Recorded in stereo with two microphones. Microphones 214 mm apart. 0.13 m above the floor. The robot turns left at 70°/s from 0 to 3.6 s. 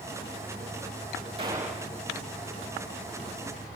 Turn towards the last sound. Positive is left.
turn(degrees=50)